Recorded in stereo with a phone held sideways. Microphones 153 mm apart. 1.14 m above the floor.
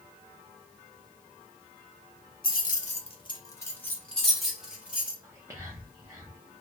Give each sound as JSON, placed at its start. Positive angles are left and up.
{"t": 2.4, "sound": "keys jangling", "side_deg": 70, "distance_m": 0.7}
{"t": 5.2, "sound": "whispering", "side_deg": -20, "distance_m": 0.7}